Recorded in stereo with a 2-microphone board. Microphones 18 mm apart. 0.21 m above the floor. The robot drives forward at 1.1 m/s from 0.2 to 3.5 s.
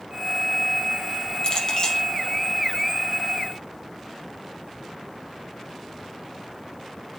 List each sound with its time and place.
1.4 s a clink: 45° left (ahead or behind), 3.5 m; by 2.0 s 50° left (ahead or behind), 3 m